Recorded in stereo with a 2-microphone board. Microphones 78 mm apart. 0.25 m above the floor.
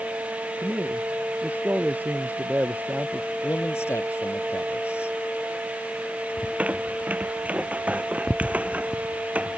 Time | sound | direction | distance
0.6 | a man speaking | 20° right (ahead or behind) | ?
3.4 | a man speaking | 35° left (ahead or behind) | ?
6.4 | a squeak | 15° right (ahead or behind) | ?